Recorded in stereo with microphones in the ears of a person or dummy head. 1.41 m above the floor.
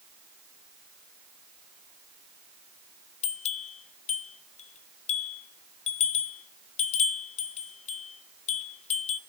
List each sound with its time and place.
3.2 s a bell: 35° left (ahead or behind), 1.1 m